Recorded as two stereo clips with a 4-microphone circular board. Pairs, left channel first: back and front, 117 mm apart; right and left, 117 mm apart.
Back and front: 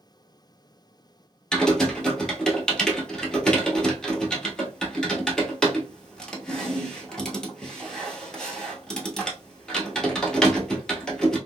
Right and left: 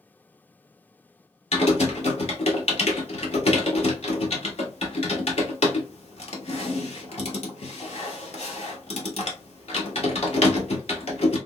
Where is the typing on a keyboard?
95° right, 0.9 m.